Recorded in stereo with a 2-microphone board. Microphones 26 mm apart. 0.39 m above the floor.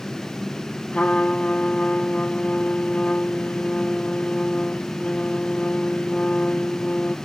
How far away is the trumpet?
About 1.7 m.